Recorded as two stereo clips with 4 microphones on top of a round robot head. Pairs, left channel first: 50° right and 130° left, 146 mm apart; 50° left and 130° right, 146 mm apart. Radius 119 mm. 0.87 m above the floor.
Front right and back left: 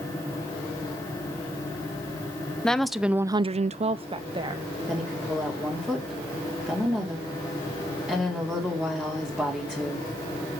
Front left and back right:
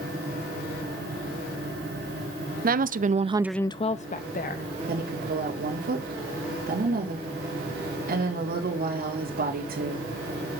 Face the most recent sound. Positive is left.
turn(degrees=-145)